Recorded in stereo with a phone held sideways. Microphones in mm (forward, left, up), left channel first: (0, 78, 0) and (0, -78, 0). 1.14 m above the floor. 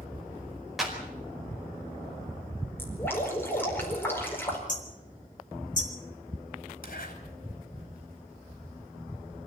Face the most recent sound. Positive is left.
turn(degrees=65)  # may be behind; listen again after turning